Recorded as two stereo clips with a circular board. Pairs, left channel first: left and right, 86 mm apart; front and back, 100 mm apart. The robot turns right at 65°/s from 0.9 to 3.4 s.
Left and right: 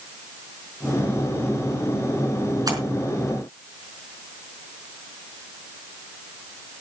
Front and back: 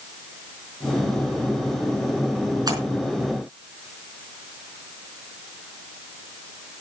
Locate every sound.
2.7 s a splash: 130° right, 4.5 m; by 2.8 s 125° right, 4.5 m